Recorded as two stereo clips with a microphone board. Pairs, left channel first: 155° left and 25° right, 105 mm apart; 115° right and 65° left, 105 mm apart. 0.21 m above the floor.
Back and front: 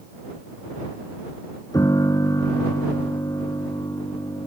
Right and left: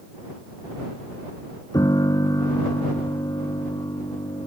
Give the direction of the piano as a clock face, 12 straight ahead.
5 o'clock.